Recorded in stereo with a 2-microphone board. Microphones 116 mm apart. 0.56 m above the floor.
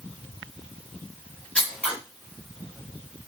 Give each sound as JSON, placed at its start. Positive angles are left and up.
{"t": 1.6, "sound": "scissors", "side_deg": 10, "distance_m": 1.2}